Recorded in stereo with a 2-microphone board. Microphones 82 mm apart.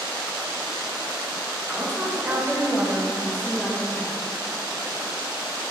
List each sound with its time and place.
1.7 s a woman speaking: 5° right (ahead or behind), 9.5 m; by 4.1 s 10° left (ahead or behind), 9 m